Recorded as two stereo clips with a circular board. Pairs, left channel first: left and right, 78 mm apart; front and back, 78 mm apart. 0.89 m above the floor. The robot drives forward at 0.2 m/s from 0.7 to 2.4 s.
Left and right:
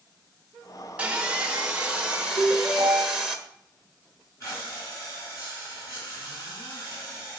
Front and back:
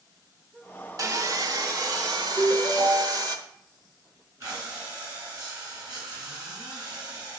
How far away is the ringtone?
About 1.3 m.